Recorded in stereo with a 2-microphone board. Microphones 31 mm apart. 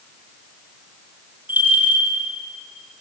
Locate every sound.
1.5 s a bell: 70° right (ahead or behind), 6.5 m